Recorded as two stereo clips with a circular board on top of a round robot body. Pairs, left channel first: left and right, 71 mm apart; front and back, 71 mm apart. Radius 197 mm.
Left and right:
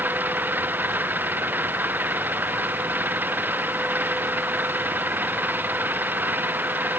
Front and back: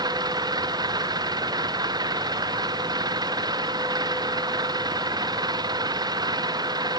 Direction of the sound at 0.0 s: 155° right.